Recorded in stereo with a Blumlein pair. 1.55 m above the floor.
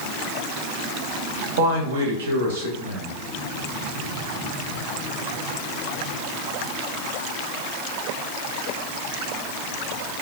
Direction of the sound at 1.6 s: 60° right.